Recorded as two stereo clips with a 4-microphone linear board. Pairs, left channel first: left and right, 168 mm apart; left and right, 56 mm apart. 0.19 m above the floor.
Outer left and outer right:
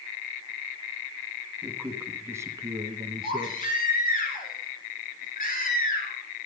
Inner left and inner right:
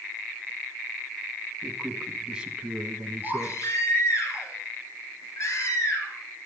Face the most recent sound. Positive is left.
turn(degrees=55)  # may be behind; listen again after turning